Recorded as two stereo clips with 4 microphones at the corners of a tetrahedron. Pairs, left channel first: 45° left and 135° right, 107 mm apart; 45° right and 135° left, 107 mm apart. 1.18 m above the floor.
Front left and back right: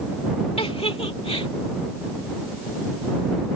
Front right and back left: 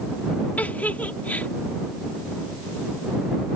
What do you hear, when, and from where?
0.6 s a giggle: 30° left